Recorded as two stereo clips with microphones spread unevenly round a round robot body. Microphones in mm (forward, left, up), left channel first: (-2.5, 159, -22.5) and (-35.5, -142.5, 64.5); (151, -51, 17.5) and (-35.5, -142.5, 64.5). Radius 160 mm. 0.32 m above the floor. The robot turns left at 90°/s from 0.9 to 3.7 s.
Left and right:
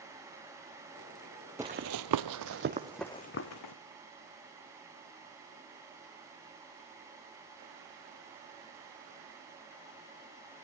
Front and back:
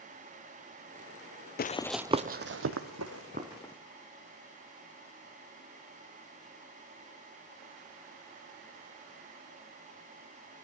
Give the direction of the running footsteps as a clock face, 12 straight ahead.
1 o'clock.